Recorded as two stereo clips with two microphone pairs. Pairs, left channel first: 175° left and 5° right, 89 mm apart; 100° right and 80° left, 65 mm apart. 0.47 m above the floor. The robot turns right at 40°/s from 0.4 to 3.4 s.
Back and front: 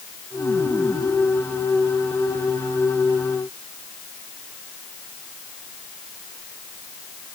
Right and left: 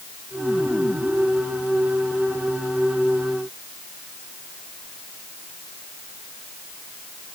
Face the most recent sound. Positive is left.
No sound to turn to.